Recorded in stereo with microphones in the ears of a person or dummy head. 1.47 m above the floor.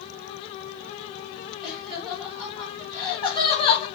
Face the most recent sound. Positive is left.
turn(degrees=35)  # may be behind; listen again after turning